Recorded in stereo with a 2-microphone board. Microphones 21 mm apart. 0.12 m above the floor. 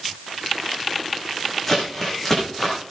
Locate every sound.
1.7 s crumpling: 10° left (ahead or behind), 9.5 m